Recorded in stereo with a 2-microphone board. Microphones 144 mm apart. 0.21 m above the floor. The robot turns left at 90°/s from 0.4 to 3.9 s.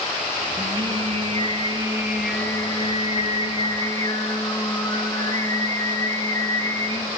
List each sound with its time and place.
0.6 s singing: 30° right, 1.0 m; by 7.1 s 30° left, 1.0 m